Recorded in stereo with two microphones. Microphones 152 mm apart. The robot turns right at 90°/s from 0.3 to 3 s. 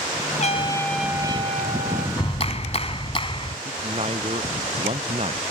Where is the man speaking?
45° right (ahead or behind).